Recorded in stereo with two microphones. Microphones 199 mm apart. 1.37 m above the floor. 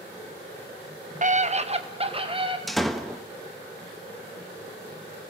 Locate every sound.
1.2 s a scream: 40° right (ahead or behind), 0.8 m; by 2.6 s 25° right (ahead or behind), 2.5 m
2.7 s a door slam: centre (ahead or behind), 1.1 m